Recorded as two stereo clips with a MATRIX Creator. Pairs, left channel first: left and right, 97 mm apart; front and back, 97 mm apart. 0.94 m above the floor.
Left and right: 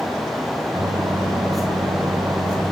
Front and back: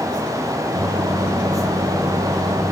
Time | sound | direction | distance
0.7 | a microwave | 135° right | 3 m